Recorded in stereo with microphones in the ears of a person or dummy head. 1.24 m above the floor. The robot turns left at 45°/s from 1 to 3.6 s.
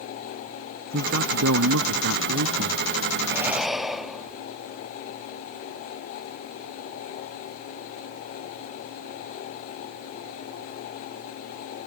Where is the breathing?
15° right (ahead or behind); by 4.5 s centre (ahead or behind).